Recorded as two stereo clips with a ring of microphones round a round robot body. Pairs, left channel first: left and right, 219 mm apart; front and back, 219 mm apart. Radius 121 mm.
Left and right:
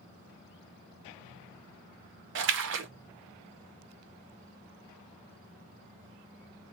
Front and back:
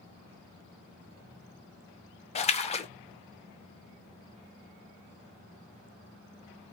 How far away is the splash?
About 0.6 m.